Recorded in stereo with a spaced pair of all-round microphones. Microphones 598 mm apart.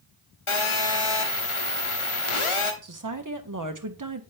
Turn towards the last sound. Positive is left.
turn(degrees=-35)  # may be behind; listen again after turning